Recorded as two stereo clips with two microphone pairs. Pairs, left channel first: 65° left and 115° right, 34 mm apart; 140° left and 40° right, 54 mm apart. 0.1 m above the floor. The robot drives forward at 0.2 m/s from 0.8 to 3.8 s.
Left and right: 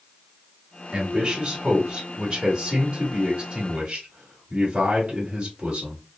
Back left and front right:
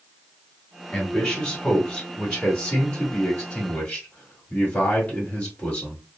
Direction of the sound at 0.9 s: 165° right.